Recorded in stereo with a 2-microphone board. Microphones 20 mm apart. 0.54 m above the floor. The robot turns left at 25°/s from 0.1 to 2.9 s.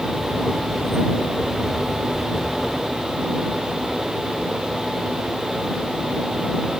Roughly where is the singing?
I don't hear singing.